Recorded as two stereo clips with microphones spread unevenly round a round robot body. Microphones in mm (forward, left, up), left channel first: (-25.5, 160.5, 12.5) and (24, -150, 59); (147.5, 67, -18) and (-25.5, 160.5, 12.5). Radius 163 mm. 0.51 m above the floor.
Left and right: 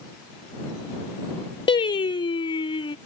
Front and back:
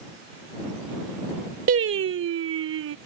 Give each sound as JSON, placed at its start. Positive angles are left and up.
{"t": 1.7, "sound": "singing", "azimuth_deg": 170}